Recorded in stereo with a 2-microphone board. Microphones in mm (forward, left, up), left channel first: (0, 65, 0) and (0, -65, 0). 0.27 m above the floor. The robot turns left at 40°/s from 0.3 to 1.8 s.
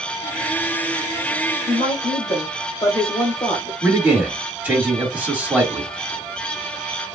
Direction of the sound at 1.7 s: 25° left (ahead or behind).